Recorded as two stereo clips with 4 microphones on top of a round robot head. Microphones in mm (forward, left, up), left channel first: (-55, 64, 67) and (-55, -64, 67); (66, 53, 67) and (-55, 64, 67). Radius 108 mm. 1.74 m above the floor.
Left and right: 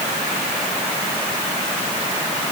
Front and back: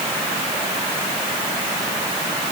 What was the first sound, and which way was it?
Only background noise.